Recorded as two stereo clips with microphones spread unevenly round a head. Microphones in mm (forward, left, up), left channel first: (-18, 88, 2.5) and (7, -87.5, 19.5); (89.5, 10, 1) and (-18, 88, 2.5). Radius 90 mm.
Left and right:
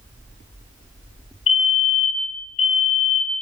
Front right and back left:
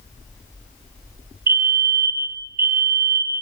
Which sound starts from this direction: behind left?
A fire alarm, at 1.5 s.